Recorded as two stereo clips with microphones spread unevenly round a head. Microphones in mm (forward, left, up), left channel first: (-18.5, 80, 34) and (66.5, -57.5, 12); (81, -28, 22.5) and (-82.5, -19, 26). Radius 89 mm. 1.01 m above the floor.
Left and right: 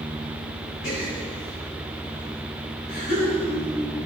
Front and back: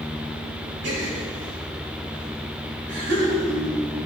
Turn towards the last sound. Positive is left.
turn(degrees=160)